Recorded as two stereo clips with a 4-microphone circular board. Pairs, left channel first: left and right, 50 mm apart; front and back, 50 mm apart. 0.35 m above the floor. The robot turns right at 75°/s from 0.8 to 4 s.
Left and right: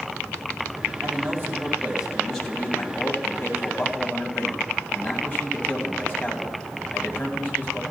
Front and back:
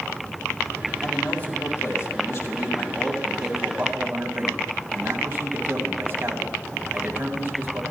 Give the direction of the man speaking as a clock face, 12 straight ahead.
3 o'clock.